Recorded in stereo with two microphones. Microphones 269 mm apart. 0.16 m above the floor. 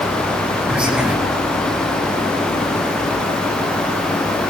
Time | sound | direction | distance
0.7 | whispering | 5° right (ahead or behind) | 2.5 m